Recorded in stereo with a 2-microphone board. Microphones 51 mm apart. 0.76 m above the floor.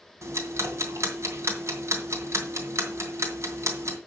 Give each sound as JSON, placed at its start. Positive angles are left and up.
{"t": 0.2, "sound": "ticking", "side_deg": -65, "distance_m": 2.5}